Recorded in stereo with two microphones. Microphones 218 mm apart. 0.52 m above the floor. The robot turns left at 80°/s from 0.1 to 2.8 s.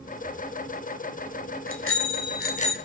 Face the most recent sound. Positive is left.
turn(degrees=20)